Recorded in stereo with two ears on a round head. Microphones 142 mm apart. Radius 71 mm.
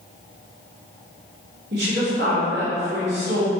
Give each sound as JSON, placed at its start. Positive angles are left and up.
{"t": 1.7, "sound": "a woman speaking", "side_deg": -75, "distance_m": 2.5}